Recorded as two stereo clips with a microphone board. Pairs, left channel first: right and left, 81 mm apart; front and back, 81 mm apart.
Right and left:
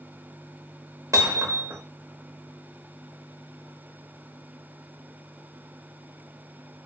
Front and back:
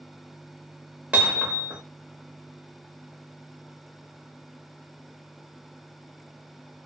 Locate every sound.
1.1 s hammering: 115° left, 1.0 m